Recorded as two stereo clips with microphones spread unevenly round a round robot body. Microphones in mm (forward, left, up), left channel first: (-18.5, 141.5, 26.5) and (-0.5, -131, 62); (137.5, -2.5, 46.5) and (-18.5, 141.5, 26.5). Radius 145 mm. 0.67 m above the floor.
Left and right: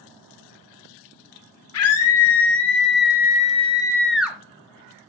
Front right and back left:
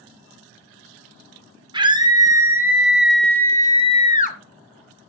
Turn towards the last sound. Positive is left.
turn(degrees=0)